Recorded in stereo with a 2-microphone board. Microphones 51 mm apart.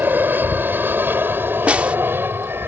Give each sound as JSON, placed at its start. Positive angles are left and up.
{"t": 0.0, "sound": "an aircraft", "side_deg": -35}
{"t": 1.7, "sound": "a snare drum", "side_deg": -25}